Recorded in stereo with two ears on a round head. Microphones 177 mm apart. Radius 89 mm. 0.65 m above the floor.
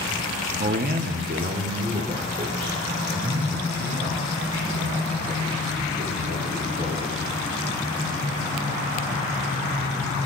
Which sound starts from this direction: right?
A man speaking, at 0.6 s.